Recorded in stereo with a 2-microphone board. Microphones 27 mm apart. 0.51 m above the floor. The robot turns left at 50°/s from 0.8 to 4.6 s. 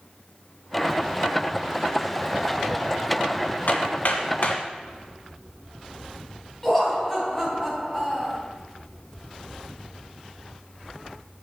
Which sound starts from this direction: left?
Hammering, at 3.7 s.